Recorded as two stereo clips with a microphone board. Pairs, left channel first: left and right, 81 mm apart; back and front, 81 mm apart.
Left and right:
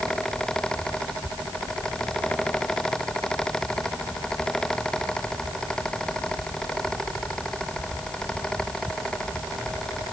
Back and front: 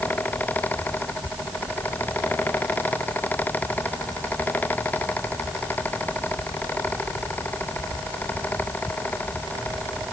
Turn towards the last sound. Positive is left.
No sound to turn to.